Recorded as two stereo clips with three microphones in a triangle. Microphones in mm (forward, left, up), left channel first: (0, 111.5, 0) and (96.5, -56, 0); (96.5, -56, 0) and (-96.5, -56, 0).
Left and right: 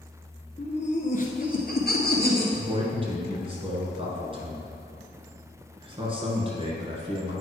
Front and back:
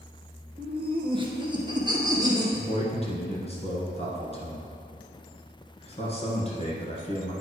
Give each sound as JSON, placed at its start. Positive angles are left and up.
{"t": 0.6, "sound": "laughter", "azimuth_deg": 150, "distance_m": 1.3}
{"t": 2.5, "sound": "a man speaking", "azimuth_deg": -20, "distance_m": 1.6}